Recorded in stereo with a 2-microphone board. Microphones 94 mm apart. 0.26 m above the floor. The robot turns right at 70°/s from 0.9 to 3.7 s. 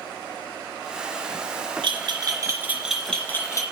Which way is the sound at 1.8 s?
65° right (ahead or behind).